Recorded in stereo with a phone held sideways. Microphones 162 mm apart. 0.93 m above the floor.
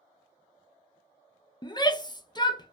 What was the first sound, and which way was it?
A shout, 30° left (ahead or behind).